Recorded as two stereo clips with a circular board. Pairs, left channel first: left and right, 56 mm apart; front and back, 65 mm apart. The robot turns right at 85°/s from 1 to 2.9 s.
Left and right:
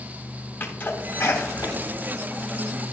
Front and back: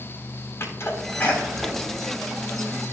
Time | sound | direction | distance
0.6 | a sneeze | 40° left | 3.5 m